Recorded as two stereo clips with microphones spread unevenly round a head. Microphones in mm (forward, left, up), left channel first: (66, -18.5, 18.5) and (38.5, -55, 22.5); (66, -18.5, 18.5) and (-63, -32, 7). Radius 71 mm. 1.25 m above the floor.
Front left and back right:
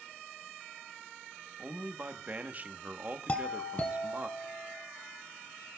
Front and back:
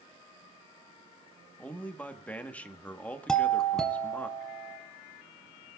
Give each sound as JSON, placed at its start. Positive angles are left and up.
{"t": 1.6, "sound": "a man speaking", "azimuth_deg": -75, "distance_m": 1.1}
{"t": 3.3, "sound": "a doorbell", "azimuth_deg": 95, "distance_m": 1.2}